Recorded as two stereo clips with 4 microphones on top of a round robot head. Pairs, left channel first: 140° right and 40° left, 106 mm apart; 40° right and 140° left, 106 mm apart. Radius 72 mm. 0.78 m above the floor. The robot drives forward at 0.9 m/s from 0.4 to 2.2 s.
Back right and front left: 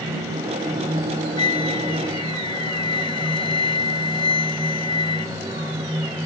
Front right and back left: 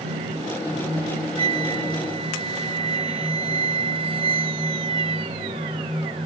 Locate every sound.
1.4 s a flute: 170° left; by 5.8 s 175° left